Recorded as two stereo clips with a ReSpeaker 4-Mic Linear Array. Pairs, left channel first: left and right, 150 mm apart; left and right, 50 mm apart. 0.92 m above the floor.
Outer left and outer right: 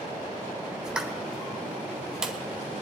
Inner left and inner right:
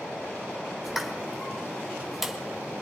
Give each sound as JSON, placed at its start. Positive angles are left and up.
{"t": 0.8, "sound": "a pop", "side_deg": -5, "distance_m": 1.5}